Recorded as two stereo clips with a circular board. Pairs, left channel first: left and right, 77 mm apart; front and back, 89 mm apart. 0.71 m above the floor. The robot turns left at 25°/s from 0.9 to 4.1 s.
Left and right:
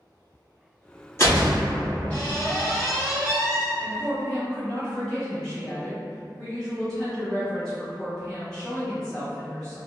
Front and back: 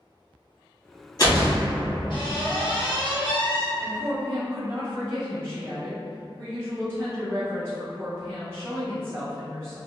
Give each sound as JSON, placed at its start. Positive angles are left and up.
{"t": 1.2, "sound": "a door slam", "azimuth_deg": 35, "distance_m": 1.2}
{"t": 3.8, "sound": "a woman speaking", "azimuth_deg": 175, "distance_m": 1.0}